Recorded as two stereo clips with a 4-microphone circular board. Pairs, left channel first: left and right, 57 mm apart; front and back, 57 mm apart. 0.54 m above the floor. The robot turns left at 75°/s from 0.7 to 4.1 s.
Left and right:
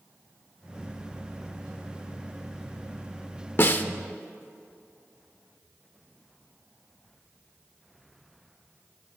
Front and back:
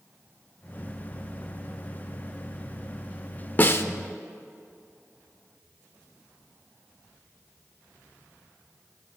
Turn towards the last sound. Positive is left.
turn(degrees=15)